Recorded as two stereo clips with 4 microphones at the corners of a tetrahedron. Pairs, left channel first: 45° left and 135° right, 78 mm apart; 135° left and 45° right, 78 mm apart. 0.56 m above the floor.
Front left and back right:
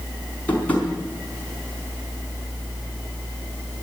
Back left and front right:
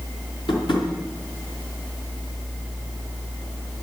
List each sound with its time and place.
0.5 s tapping: 115° left, 4.5 m